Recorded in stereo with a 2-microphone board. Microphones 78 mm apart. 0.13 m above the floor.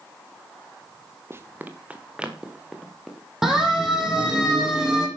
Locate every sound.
1.3 s running footsteps: 30° right (ahead or behind), 2 m; by 3.3 s centre (ahead or behind), 5 m
3.4 s a siren: 5° right (ahead or behind), 7.5 m